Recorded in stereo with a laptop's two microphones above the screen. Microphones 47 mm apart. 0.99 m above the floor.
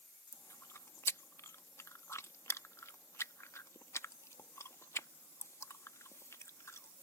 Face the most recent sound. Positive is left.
turn(degrees=75)  # may be behind; listen again after turning